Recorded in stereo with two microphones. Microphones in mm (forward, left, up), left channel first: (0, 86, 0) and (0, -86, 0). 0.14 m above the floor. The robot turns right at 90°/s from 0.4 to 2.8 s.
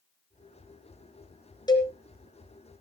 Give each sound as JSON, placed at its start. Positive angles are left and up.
{"t": 1.7, "sound": "a cowbell", "side_deg": 25, "distance_m": 2.5}